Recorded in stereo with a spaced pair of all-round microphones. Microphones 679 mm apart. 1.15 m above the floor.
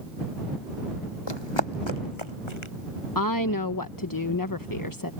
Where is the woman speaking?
30° left (ahead or behind).